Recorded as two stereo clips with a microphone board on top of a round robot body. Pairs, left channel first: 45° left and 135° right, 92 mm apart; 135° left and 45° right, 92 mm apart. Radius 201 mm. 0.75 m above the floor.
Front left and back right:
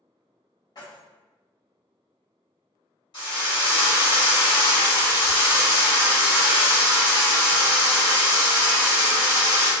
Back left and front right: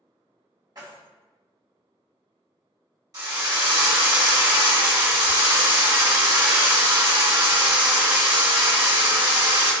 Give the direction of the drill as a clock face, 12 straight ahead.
12 o'clock.